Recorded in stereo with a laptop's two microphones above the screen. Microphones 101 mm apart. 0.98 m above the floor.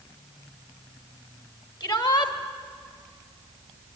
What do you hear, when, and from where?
1.8 s a shout: 45° left (ahead or behind), 1.7 m